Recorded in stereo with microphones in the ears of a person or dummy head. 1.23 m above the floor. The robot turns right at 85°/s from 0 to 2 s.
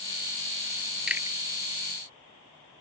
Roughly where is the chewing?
Centre.